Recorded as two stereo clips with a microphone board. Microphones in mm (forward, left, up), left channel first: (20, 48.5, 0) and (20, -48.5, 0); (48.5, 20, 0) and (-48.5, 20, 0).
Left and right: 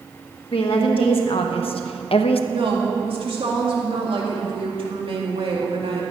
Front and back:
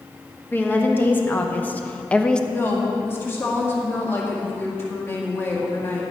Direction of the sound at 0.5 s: 70° left.